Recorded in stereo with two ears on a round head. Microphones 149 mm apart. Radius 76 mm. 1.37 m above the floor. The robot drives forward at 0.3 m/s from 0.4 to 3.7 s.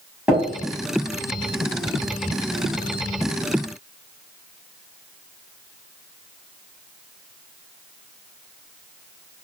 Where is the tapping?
5° right (ahead or behind), 1.4 m.